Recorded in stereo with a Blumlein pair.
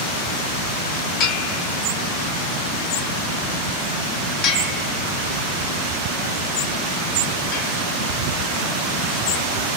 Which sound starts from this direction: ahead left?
A bell, at 1.2 s.